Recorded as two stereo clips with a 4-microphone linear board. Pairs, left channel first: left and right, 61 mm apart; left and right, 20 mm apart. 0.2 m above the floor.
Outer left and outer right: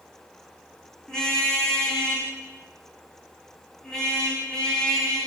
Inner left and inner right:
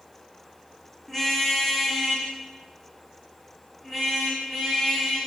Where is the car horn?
10° left (ahead or behind), 8 m.